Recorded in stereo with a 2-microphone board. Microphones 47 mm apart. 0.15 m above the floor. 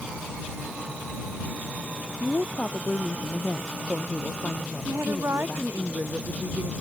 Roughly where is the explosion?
No explosion in this recording.